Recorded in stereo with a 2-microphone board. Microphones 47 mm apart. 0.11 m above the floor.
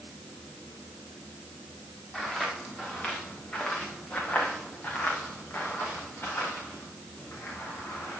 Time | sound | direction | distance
2.1 | footsteps | 10° left (ahead or behind) | 3 m